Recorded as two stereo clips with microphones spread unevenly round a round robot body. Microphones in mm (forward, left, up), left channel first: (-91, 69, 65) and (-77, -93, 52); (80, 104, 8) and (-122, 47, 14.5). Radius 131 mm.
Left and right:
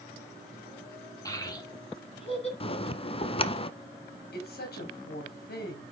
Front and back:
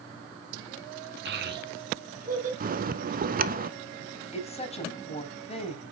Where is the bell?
150° left, 1.0 m.